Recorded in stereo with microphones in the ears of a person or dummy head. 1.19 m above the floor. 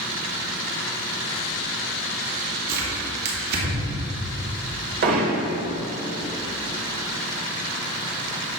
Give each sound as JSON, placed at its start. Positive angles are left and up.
{"t": 2.7, "sound": "tearing paper", "side_deg": -55, "distance_m": 2.5}
{"t": 5.0, "sound": "hammering", "side_deg": -45, "distance_m": 1.4}